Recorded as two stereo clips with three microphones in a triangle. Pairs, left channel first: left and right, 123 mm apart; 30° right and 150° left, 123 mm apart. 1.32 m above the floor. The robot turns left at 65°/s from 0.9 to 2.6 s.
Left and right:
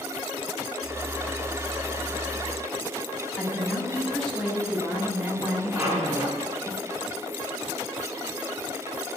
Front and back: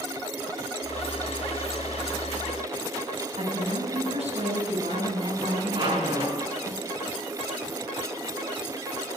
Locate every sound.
3.4 s a woman speaking: 175° left, 8.5 m
5.7 s a squeak: 160° right, 5.5 m